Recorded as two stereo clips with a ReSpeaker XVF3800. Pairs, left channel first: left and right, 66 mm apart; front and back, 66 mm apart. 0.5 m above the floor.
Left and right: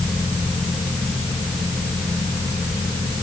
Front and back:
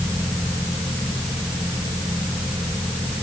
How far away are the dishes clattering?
No dishes clattering in this recording.